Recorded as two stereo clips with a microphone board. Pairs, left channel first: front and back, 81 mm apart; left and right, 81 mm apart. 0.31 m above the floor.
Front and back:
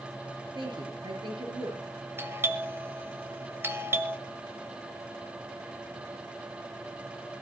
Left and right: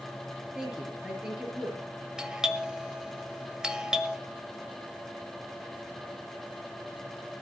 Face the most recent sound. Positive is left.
turn(degrees=-160)